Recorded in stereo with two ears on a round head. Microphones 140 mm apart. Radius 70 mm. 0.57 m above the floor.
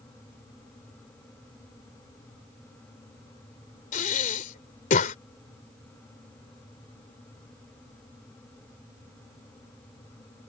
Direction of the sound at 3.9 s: 55° left (ahead or behind).